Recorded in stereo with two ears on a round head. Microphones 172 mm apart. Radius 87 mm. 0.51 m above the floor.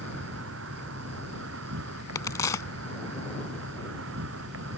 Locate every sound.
0.0 s an insect: 80° right
2.1 s a crack: 15° left (ahead or behind)